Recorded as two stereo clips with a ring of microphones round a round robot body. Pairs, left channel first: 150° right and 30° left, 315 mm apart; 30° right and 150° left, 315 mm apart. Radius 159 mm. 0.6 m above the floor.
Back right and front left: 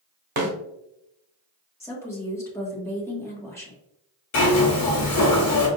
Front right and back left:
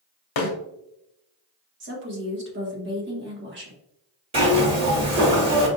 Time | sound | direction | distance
0.4 | a snare drum | 25° right | 1.1 m
1.8 | a woman speaking | 135° left | 1.3 m
4.3 | a zipper | 140° right | 1.5 m